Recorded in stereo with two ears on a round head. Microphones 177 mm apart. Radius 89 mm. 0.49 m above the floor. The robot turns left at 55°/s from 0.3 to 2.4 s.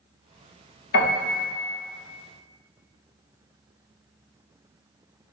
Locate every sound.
0.9 s a piano: 65° left (ahead or behind), 1.5 m; by 1.4 s 40° left (ahead or behind), 1.5 m